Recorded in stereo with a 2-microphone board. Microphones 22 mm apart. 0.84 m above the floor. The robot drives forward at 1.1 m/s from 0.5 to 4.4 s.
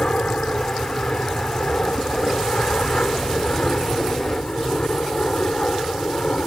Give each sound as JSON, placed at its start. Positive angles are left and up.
{"t": 0.0, "sound": "an aircraft", "side_deg": 55}